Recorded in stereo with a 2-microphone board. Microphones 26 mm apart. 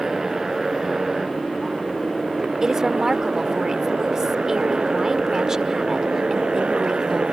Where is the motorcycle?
20° right (ahead or behind); by 7.3 s 45° right (ahead or behind).